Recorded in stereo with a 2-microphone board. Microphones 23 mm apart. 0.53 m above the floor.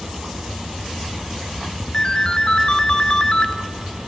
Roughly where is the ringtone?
Left.